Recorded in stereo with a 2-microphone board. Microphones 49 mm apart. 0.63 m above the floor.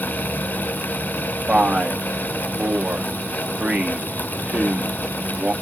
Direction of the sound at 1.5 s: 25° right (ahead or behind).